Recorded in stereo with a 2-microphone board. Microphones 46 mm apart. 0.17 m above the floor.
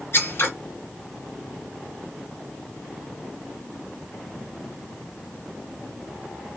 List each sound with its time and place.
0.1 s scissors: 55° left (ahead or behind), 2.5 m